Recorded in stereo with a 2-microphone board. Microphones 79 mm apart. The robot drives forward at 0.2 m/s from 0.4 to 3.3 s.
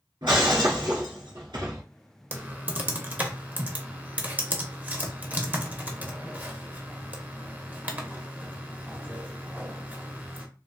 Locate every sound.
0.2 s breaking glass: 85° right, 1.6 m
2.3 s typing on a keyboard: 25° right (ahead or behind), 0.7 m; by 10.5 s 20° right (ahead or behind), 0.8 m